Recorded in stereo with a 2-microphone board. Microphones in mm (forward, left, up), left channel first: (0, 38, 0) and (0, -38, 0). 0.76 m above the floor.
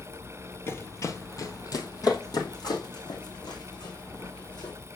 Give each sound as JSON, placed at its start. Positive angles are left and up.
{"t": 0.7, "sound": "running footsteps", "side_deg": 35, "distance_m": 0.9}